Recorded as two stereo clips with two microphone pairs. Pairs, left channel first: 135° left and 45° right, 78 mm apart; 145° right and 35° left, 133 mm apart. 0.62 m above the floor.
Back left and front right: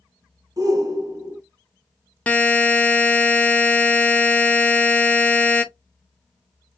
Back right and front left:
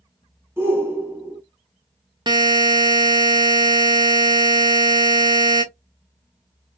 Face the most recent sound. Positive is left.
turn(degrees=70)